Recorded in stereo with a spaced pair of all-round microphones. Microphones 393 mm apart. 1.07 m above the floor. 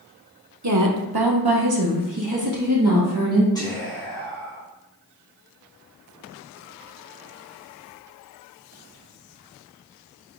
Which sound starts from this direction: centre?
Whispering, at 3.5 s.